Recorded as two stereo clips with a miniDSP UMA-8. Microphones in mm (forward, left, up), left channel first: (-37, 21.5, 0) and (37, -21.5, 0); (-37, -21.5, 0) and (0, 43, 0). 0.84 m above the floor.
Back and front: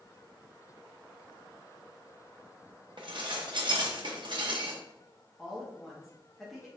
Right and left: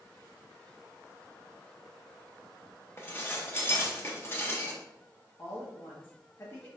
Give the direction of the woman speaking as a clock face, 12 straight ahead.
4 o'clock.